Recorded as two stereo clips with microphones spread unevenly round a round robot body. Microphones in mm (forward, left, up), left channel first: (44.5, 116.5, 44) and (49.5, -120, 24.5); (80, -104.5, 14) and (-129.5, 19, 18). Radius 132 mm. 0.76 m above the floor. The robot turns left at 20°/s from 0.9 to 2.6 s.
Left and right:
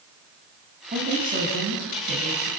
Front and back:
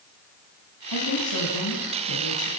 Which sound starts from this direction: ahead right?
A woman speaking, at 0.9 s.